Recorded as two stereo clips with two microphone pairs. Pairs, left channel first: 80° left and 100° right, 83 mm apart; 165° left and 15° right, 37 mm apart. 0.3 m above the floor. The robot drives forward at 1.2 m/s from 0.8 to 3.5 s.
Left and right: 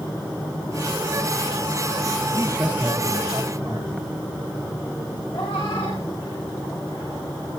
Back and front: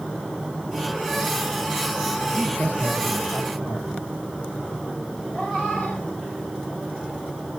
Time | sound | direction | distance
2.3 | a man speaking | 165° right | 5.5 m
5.3 | a cat meowing | 90° left | 4 m